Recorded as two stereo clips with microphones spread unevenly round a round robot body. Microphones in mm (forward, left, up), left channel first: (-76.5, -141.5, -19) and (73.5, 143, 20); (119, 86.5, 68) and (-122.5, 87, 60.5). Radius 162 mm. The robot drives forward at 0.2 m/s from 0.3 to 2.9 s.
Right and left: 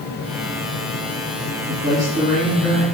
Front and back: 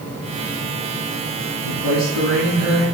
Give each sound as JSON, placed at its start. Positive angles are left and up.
{"t": 1.6, "sound": "a man speaking", "azimuth_deg": 155, "distance_m": 3.5}